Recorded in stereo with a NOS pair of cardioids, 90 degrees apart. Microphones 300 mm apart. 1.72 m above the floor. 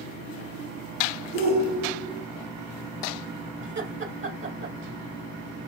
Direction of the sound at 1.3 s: 30° right.